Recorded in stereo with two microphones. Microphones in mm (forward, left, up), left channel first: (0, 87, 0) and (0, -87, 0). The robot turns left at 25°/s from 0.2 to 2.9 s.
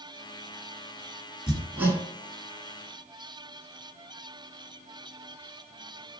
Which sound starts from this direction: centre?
Hammering, at 1.5 s.